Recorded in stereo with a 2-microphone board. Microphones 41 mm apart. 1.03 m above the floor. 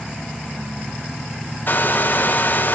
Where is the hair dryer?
50° left (ahead or behind), 0.9 m.